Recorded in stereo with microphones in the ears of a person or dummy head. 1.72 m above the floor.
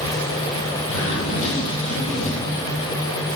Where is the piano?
No piano in this recording.